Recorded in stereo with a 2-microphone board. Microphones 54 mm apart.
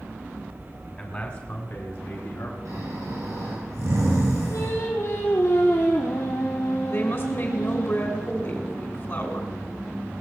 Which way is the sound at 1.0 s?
30° left (ahead or behind).